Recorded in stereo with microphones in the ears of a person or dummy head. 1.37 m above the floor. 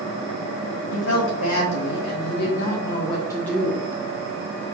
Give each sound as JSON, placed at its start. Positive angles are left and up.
{"t": 0.9, "sound": "a woman speaking", "side_deg": 70, "distance_m": 1.8}